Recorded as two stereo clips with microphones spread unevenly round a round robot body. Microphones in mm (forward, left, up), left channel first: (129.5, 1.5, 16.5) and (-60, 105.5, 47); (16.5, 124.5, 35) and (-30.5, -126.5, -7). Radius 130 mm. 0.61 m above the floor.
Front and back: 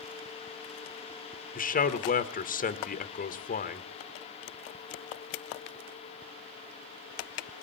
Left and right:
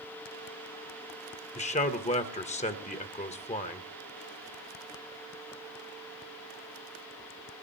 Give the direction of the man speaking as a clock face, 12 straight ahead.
12 o'clock.